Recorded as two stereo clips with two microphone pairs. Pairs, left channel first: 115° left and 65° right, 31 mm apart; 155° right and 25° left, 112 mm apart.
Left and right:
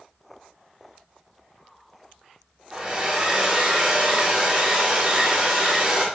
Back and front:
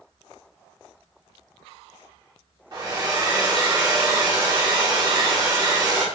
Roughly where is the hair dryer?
Ahead.